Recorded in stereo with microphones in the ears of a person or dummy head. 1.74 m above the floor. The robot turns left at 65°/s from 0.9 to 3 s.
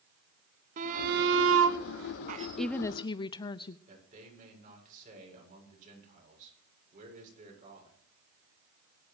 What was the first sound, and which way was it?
A shout, 45° right.